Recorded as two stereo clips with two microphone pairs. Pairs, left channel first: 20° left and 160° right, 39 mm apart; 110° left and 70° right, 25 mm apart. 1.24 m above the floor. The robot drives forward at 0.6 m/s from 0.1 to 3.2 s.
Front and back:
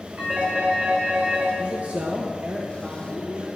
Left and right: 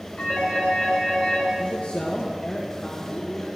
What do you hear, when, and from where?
0.2 s a phone ringing: 150° left, 5 m; by 1.5 s 155° left, 6 m
1.6 s a man speaking: 150° left, 1.3 m; by 3.5 s 165° left, 2 m